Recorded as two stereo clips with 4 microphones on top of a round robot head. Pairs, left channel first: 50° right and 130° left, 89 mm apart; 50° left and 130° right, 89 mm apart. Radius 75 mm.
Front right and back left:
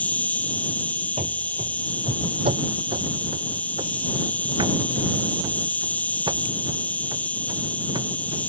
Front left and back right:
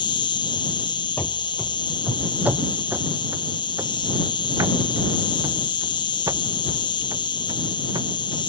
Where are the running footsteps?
115° left; by 8.4 s straight behind.